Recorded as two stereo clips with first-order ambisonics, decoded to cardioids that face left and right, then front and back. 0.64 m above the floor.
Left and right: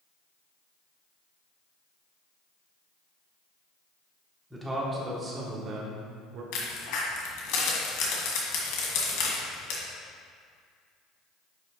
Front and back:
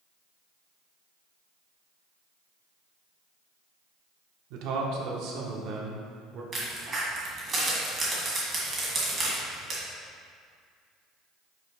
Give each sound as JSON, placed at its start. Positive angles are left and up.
{"t": 4.5, "sound": "a man speaking", "azimuth_deg": -175, "distance_m": 1.3}
{"t": 6.5, "sound": "a crack", "azimuth_deg": 110, "distance_m": 2.0}